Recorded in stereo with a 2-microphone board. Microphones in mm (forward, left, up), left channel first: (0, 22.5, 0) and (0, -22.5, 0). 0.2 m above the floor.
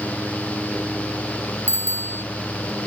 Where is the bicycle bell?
60° right (ahead or behind).